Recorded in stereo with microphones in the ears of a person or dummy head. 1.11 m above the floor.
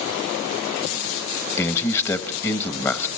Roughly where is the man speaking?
Centre.